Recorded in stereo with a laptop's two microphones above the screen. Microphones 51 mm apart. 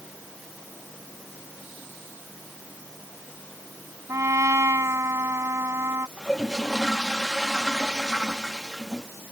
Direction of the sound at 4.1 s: 70° right (ahead or behind).